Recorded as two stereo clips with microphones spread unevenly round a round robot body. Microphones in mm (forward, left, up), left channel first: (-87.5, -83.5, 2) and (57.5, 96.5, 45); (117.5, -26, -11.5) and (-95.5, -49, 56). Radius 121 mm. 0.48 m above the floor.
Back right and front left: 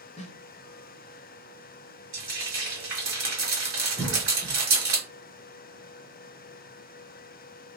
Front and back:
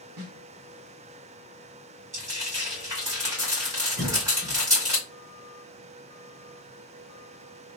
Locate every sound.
0.2 s a snare drum: 170° left, 0.6 m
2.1 s frying: 95° left, 2.0 m
4.0 s a cough: 165° right, 0.8 m